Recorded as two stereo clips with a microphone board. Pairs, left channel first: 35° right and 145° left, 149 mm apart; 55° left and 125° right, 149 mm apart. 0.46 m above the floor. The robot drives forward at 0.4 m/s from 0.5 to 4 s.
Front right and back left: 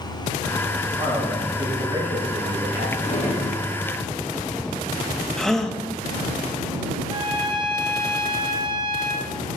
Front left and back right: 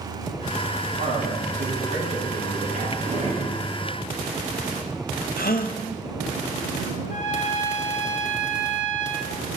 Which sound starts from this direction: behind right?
A man speaking, at 1.0 s.